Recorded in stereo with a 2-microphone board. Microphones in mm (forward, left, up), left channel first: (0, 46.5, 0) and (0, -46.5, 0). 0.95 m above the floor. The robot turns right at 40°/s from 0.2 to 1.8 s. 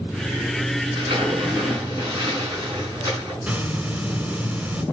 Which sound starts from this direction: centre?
A hiss, at 3.4 s.